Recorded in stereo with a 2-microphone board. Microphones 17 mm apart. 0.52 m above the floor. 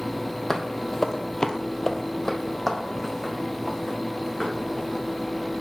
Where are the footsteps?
20° left (ahead or behind), 0.9 m; by 5.0 s 10° left (ahead or behind), 3 m.